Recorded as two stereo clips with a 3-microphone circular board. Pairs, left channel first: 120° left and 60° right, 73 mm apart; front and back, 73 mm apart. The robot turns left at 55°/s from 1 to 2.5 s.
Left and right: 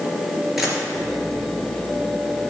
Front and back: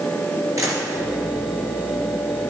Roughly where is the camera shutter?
Behind right.